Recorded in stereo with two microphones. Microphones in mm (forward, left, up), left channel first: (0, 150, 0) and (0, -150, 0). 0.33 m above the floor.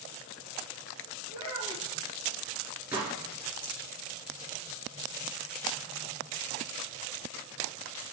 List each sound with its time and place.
1.3 s a child speaking: 40° left (ahead or behind), 1.0 m
2.9 s a pop: 5° right (ahead or behind), 4.5 m